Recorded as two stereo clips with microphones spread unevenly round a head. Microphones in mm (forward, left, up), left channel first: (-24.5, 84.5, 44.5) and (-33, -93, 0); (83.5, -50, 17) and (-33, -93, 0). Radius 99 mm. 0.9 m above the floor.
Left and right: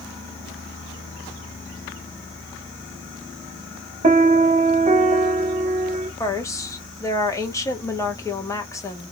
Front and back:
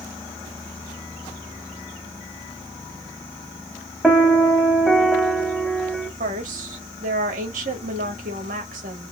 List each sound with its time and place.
4.0 s a piano: 70° right, 1.0 m
6.2 s a woman speaking: 165° left, 1.3 m